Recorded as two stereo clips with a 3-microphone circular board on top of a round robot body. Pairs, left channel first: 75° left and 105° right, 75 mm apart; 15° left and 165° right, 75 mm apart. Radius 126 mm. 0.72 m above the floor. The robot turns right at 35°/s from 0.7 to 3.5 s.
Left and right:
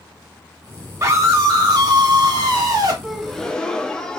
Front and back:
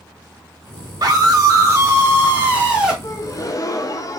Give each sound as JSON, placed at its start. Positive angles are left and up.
{"t": 1.0, "sound": "a scream", "azimuth_deg": -150, "distance_m": 1.5}
{"t": 3.0, "sound": "a gasp", "azimuth_deg": -20, "distance_m": 0.6}